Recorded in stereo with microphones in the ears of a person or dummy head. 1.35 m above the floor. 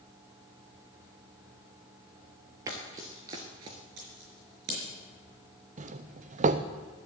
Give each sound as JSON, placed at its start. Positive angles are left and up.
{"t": 2.7, "sound": "running footsteps", "side_deg": -20, "distance_m": 1.7}
{"t": 4.0, "sound": "scissors", "side_deg": -70, "distance_m": 4.5}
{"t": 5.8, "sound": "a doorbell", "side_deg": -35, "distance_m": 0.6}